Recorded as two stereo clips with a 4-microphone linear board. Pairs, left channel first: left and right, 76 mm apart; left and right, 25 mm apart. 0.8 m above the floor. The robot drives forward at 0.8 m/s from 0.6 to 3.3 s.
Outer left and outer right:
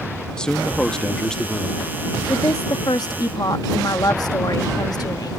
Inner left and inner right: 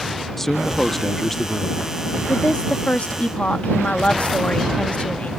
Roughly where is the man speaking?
Centre.